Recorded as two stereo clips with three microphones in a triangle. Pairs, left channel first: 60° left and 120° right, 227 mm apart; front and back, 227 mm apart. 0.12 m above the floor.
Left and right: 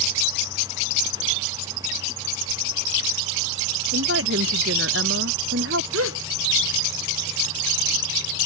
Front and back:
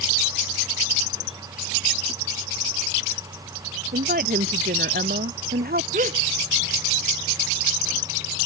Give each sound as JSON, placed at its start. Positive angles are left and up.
{"t": 3.9, "sound": "a woman speaking", "azimuth_deg": -135}
{"t": 5.9, "sound": "a gasp", "azimuth_deg": -125}